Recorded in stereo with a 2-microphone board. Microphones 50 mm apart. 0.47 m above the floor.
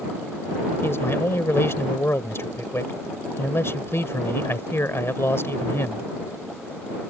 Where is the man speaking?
55° left (ahead or behind).